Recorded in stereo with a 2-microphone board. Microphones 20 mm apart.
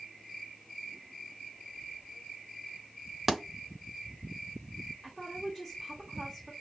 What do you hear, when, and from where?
3.3 s a thud: 15° right (ahead or behind), 0.7 m
5.0 s a woman speaking: 10° right (ahead or behind), 1.4 m